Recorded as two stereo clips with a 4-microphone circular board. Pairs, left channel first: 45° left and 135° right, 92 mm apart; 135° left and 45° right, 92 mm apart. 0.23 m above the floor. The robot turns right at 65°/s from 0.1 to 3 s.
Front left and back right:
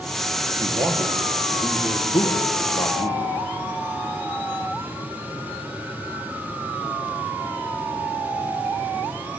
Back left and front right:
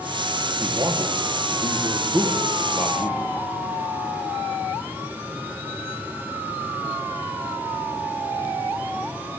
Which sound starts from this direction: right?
A man speaking, at 0.6 s.